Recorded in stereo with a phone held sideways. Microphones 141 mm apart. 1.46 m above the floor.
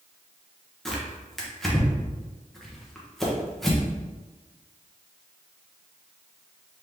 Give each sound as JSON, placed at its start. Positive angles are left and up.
{"t": 0.8, "sound": "tearing paper", "side_deg": 5, "distance_m": 1.0}